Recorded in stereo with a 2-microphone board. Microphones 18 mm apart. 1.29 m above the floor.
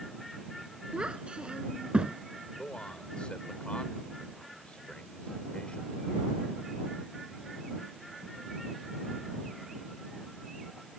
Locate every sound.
0.9 s a child speaking: 70° right (ahead or behind); by 2.2 s 75° right (ahead or behind)
2.6 s a man speaking: 85° left